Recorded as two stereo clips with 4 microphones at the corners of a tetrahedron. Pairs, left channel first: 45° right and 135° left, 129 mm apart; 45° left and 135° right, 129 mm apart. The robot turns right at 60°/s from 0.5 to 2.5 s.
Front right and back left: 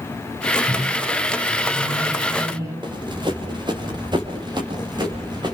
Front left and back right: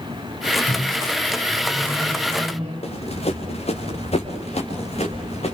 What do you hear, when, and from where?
0.7 s a microwave: 80° left, 8.5 m; by 2.7 s 170° right, 8.5 m
2.8 s running footsteps: 80° left, 4 m